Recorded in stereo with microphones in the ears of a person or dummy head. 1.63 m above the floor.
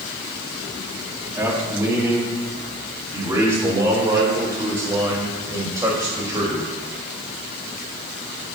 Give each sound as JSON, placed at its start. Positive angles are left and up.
{"t": 1.4, "sound": "a man speaking", "side_deg": -15, "distance_m": 2.5}